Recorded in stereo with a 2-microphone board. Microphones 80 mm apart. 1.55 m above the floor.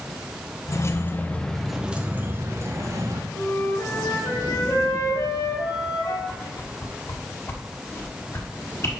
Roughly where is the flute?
Left.